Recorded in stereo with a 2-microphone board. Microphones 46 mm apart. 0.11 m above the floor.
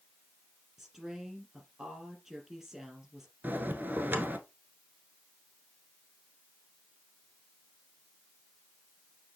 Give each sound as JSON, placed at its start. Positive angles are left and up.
{"t": 0.8, "sound": "a woman speaking", "side_deg": -10, "distance_m": 3.0}
{"t": 3.4, "sound": "a bell", "side_deg": -40, "distance_m": 1.1}